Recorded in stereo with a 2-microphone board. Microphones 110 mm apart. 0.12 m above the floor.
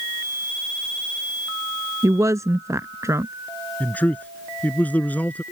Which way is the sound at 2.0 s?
30° right (ahead or behind).